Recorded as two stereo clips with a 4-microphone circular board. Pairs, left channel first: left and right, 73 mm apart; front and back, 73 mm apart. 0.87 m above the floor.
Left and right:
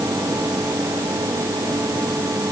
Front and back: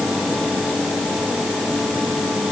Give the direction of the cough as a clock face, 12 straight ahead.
No cough in this recording.